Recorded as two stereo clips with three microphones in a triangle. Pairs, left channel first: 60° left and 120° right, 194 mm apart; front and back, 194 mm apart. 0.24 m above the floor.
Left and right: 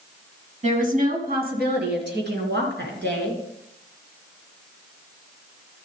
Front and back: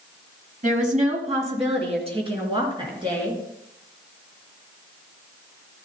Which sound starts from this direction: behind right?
A woman speaking, at 0.6 s.